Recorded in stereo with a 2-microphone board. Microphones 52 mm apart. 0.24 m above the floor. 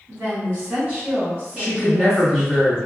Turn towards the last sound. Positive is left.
turn(degrees=-30)  # may be behind; listen again after turning